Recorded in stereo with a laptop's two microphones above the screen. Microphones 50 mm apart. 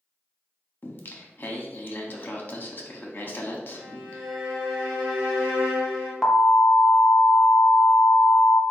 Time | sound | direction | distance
0.8 | singing | 40° left (ahead or behind) | 0.8 m
3.7 | a violin | 5° left (ahead or behind) | 1.6 m
6.2 | an alarm | 5° left (ahead or behind) | 0.5 m